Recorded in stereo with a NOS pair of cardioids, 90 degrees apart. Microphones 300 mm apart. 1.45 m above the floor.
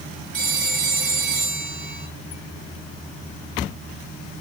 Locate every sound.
0.3 s a phone ringing: 45° right, 4.5 m